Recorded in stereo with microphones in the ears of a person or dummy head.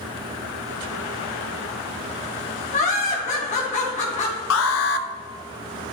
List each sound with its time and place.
2.7 s laughter: 35° left (ahead or behind), 1.4 m
4.5 s an alarm: 75° left (ahead or behind), 0.8 m